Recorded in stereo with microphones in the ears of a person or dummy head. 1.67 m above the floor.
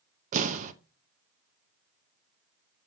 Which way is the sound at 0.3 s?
40° right (ahead or behind).